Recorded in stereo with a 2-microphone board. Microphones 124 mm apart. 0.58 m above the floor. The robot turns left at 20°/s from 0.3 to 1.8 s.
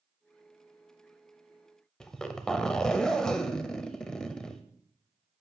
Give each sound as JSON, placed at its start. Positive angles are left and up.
{"t": 2.0, "sound": "a zipper", "side_deg": 5, "distance_m": 0.7}